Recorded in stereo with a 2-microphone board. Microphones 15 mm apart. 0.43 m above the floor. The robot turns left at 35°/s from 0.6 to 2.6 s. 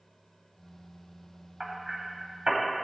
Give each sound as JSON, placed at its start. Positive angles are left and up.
{"t": 1.6, "sound": "hammering", "side_deg": -20, "distance_m": 2.5}